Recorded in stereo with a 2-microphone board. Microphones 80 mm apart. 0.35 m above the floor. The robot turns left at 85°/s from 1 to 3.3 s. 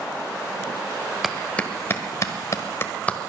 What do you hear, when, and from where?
1.2 s a clap: 5° right (ahead or behind), 1.3 m; by 3.3 s 10° left (ahead or behind), 1.3 m